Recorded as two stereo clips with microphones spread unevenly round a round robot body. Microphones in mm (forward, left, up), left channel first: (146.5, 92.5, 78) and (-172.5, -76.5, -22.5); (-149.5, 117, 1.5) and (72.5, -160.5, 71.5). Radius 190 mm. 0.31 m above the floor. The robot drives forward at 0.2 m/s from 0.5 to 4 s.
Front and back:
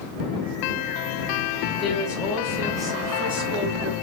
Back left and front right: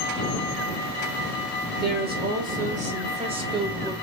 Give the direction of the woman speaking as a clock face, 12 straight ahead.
3 o'clock.